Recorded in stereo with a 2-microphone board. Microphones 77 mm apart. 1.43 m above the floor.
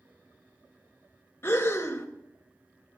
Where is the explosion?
No explosion in this recording.